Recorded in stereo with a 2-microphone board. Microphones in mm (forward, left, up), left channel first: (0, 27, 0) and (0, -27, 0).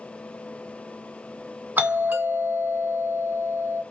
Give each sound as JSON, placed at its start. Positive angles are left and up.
{"t": 1.8, "sound": "a doorbell", "side_deg": -30, "distance_m": 1.6}